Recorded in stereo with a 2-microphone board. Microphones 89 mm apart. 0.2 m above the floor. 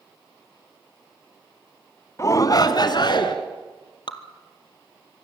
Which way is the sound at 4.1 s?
60° left (ahead or behind).